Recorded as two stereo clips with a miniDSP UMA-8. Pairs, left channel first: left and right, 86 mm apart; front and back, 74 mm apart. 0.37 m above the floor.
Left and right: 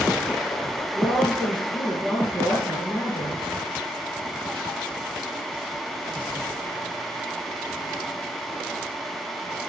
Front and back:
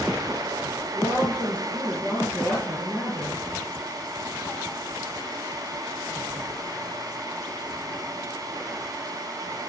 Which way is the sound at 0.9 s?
130° right.